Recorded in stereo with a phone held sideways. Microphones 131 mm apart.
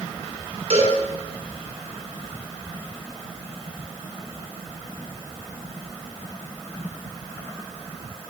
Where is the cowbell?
55° right (ahead or behind), 6.5 m.